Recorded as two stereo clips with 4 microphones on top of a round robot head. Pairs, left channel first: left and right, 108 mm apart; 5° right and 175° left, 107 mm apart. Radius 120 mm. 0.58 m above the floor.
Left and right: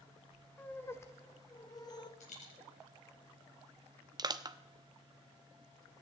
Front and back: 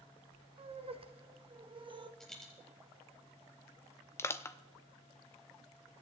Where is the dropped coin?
80° left, 4 m.